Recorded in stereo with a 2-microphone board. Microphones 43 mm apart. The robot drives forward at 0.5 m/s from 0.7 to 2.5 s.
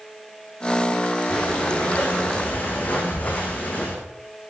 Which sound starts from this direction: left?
Breathing, at 1.3 s.